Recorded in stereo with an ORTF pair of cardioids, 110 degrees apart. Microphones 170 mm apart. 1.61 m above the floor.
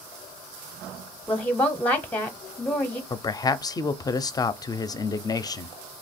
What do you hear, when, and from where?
1.3 s a woman speaking: 10° left, 0.7 m
3.1 s a man speaking: 25° left, 0.5 m